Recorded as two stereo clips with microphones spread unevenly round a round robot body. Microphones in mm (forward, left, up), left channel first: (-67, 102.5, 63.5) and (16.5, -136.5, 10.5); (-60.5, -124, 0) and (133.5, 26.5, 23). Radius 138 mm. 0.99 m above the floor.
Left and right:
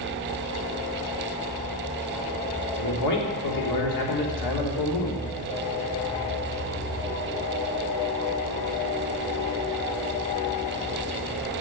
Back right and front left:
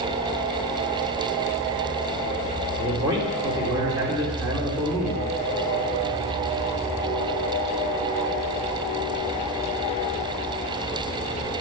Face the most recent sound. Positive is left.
turn(degrees=115)